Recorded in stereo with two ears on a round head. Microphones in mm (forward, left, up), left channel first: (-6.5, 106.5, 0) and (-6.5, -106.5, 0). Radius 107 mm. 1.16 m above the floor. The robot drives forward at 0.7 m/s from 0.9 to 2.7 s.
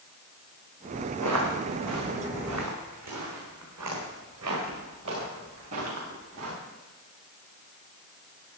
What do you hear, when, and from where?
1.2 s footsteps: 75° right (ahead or behind), 4.5 m; by 6.5 s 65° right (ahead or behind), 8 m